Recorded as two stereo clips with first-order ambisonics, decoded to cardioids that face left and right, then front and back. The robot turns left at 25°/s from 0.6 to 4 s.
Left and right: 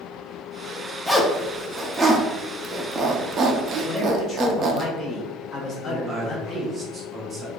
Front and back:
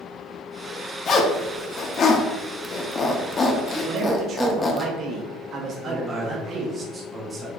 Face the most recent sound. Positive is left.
turn(degrees=-135)